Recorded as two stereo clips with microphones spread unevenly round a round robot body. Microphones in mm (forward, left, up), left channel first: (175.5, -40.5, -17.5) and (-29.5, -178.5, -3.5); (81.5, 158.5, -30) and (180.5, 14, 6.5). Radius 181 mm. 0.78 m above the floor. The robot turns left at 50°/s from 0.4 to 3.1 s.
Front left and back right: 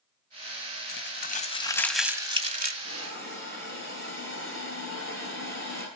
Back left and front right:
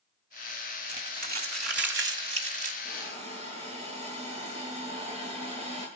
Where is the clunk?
No clunk in this recording.